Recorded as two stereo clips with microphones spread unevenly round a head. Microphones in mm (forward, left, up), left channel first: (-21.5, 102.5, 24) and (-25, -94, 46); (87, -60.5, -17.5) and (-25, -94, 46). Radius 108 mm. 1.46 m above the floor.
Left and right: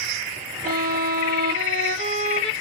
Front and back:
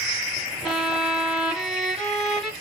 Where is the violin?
110° right, 0.9 m.